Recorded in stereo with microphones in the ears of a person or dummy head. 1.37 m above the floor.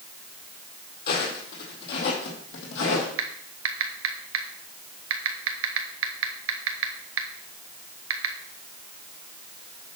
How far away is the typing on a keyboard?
About 1.2 m.